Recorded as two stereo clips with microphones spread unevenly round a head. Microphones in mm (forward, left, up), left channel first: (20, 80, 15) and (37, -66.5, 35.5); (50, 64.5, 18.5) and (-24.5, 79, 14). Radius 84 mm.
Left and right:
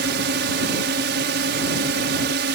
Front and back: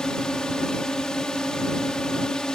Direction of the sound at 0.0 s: 95° right.